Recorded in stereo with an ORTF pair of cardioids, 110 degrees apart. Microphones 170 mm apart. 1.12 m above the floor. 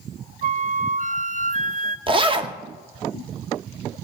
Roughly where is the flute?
Ahead right.